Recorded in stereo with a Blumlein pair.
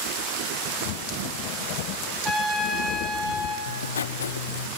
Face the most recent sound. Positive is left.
turn(degrees=65)